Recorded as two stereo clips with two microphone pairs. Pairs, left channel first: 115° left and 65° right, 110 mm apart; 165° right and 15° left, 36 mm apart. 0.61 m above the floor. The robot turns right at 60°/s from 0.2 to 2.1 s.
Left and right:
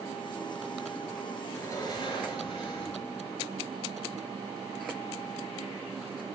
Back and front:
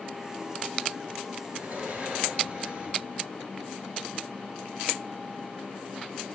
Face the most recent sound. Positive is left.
turn(degrees=80)